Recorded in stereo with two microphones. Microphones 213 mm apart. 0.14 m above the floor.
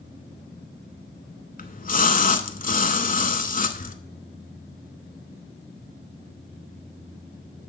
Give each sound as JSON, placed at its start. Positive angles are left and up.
{"t": 1.6, "sound": "a splash", "side_deg": 40, "distance_m": 0.5}